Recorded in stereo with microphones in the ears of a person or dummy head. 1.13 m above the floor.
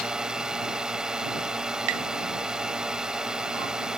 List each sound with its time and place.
0.0 s a drone: centre (ahead or behind)
1.9 s tapping: 70° right (ahead or behind)